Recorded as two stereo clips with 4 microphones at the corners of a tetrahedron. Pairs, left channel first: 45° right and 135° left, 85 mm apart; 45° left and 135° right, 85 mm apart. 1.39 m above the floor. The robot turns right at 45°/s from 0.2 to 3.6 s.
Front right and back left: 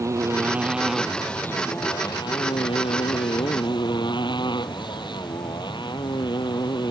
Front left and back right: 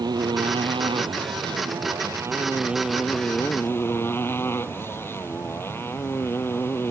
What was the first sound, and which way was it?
A motorcycle, 170° right.